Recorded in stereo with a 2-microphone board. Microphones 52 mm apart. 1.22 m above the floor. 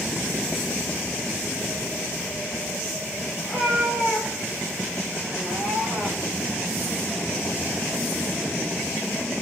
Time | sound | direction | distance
3.4 | a cat meowing | 5° left (ahead or behind) | 7 m